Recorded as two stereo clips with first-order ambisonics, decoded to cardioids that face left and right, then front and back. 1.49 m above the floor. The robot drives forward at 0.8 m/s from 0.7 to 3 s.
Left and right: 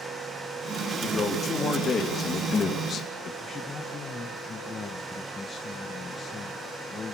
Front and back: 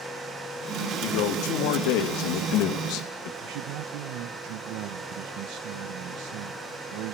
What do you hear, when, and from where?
1.0 s a man speaking: 20° left, 4 m; by 3.3 s 30° left, 2.5 m
3.4 s a man speaking: 160° left, 1.2 m